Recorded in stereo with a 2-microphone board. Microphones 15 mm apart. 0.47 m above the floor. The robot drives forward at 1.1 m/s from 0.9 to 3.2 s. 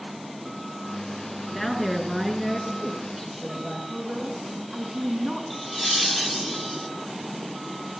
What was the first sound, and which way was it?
A woman speaking, 20° left (ahead or behind).